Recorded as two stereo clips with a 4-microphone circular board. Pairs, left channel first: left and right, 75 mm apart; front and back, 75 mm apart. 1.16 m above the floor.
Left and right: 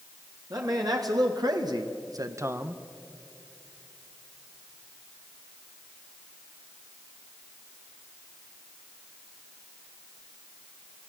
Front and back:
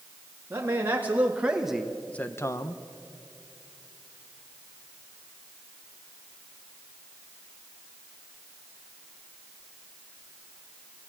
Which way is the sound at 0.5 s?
120° right.